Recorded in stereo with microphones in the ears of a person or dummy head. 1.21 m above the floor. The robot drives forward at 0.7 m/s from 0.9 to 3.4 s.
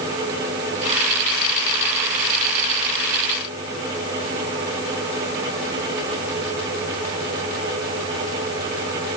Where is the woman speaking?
I don't hear a woman speaking.